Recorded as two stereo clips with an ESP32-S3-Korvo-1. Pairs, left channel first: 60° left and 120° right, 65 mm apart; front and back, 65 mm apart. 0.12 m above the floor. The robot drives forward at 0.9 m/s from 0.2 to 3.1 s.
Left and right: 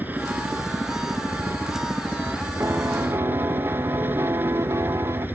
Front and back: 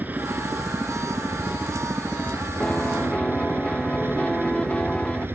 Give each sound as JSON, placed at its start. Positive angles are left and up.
{"t": 0.0, "sound": "a helicopter", "azimuth_deg": -150}
{"t": 2.6, "sound": "a piano", "azimuth_deg": -70}